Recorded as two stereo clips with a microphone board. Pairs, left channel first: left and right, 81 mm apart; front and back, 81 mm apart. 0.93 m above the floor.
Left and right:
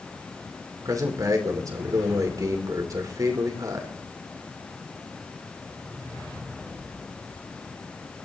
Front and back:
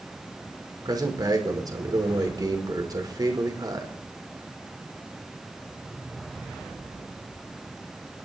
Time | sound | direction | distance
0.8 | a man speaking | 140° right | 2.5 m